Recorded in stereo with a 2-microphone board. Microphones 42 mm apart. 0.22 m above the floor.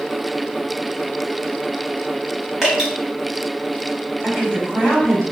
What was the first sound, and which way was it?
Dripping, 10° right (ahead or behind).